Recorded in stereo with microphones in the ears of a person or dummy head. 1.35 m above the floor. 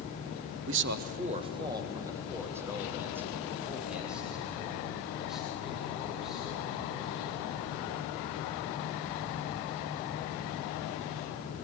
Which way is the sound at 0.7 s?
60° right (ahead or behind).